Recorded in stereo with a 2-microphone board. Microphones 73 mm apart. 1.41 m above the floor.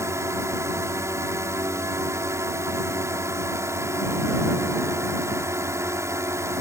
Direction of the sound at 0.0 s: 45° right (ahead or behind).